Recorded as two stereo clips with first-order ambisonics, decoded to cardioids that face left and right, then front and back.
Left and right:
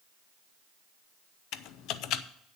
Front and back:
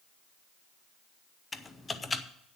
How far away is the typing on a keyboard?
About 0.6 m.